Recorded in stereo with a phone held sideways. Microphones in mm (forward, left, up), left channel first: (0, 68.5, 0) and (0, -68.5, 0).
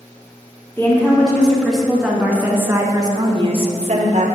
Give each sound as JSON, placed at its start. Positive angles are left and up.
{"t": 0.8, "sound": "a woman speaking", "side_deg": 15, "distance_m": 2.5}